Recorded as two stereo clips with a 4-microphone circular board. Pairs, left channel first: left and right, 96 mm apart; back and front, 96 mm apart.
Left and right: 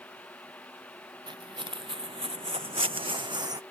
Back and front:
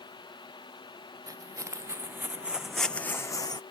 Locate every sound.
1.3 s footsteps: 55° right; by 3.6 s 140° right